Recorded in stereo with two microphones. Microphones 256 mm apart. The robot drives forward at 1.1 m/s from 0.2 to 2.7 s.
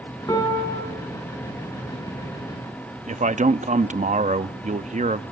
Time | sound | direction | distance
0.3 | a piano | 15° left (ahead or behind) | 5.5 m
3.1 | a man speaking | 30° right (ahead or behind) | 0.6 m